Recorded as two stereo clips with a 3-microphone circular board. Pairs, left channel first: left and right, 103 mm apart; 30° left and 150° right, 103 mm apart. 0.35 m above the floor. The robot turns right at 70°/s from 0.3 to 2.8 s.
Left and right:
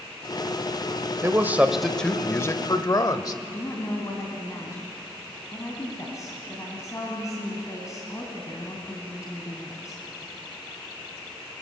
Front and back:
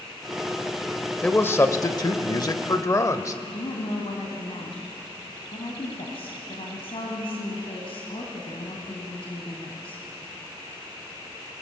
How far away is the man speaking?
About 1.0 m.